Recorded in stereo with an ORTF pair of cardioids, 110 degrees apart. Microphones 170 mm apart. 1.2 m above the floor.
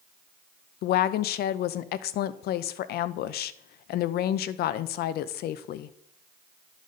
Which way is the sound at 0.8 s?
65° left.